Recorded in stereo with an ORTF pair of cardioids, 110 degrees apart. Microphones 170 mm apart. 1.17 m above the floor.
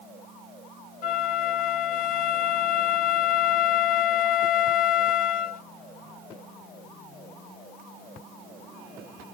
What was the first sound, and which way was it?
A flute, 55° left.